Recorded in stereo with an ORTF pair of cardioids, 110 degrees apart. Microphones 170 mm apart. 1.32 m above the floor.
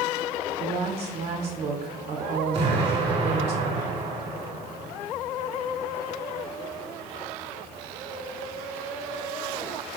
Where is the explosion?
35° right, 1.5 m.